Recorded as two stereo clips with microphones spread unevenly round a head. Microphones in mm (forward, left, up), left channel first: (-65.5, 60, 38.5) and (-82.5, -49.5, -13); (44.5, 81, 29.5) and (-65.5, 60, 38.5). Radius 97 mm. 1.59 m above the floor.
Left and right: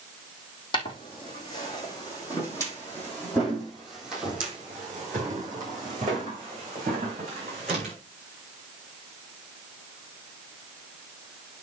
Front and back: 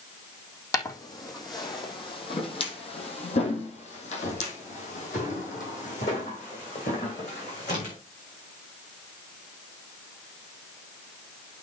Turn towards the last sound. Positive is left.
turn(degrees=-35)